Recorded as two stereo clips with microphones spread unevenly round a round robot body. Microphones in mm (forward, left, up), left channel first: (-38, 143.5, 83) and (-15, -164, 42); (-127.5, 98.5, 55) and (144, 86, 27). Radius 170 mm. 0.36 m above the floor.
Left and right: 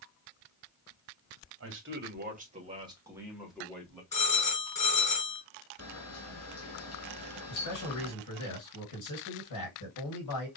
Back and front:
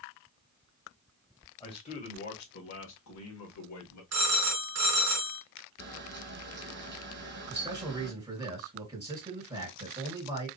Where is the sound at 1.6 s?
105° right, 2.0 m; by 4.0 s straight behind, 2.5 m.